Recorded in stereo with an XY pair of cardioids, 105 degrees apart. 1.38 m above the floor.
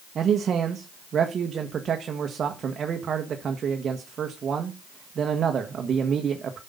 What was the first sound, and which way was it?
A man speaking, 50° right.